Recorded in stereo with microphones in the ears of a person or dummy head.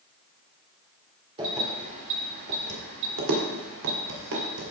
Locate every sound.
1.4 s keys jangling: 30° right (ahead or behind), 3 m; by 4.7 s 80° right, 4 m